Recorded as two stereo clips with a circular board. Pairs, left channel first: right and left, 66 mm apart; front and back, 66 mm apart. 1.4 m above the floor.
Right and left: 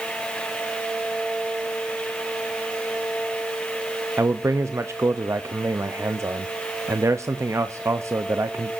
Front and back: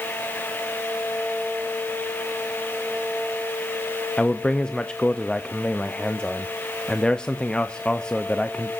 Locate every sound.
4.2 s a man speaking: 70° left, 0.6 m